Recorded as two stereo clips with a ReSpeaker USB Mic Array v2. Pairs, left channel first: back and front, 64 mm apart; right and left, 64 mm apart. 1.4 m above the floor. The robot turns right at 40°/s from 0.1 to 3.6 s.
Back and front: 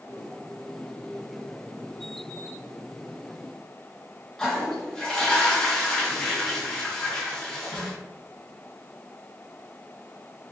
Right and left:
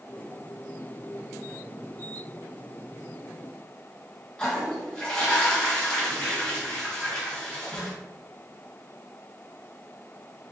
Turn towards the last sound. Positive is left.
turn(degrees=-120)